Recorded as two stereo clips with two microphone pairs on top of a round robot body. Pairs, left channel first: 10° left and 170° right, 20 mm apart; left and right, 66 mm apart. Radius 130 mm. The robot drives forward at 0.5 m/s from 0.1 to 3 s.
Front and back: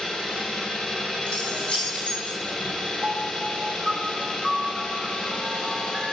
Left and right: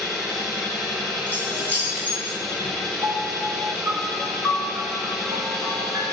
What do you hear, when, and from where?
0.0 s an engine running: 5° right, 8.5 m
1.3 s keys jangling: 25° right, 8.5 m
3.0 s a piano: 125° right, 5 m